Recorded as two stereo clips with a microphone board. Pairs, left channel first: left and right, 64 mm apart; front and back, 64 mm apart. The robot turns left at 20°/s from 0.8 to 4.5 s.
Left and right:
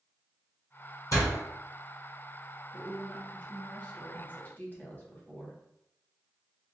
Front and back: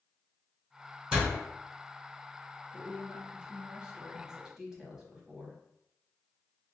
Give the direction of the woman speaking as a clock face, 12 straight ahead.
7 o'clock.